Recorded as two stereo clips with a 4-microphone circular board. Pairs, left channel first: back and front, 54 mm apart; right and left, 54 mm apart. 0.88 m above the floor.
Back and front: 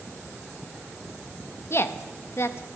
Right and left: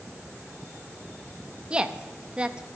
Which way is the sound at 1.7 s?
160° left.